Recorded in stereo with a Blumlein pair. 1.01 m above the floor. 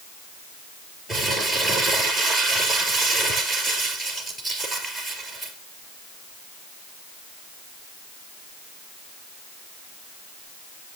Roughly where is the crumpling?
Ahead.